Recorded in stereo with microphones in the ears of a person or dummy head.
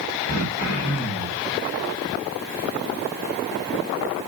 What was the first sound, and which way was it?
Throat clearing, 45° left (ahead or behind).